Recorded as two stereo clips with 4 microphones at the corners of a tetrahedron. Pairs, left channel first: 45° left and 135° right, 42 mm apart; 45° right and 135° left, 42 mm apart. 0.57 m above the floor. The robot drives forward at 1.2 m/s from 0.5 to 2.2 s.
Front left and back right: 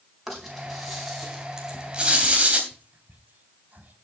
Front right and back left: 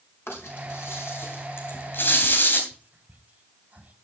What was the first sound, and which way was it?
A rattle, 45° right.